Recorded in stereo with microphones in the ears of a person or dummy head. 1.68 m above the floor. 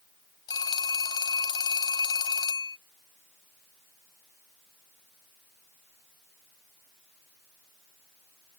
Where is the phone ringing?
25° left (ahead or behind).